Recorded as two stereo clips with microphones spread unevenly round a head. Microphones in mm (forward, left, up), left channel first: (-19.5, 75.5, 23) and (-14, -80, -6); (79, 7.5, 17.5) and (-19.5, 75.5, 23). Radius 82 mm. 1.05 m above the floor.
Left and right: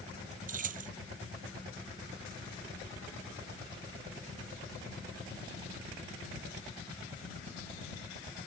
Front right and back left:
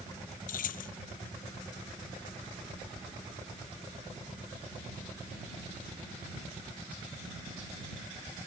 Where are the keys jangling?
45° right.